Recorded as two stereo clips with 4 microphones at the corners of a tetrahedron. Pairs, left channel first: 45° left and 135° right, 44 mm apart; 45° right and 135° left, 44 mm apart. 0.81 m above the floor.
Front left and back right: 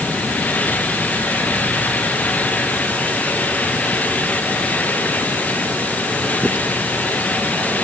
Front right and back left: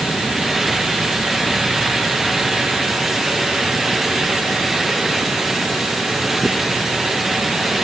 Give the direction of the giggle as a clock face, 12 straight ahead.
No giggle in this recording.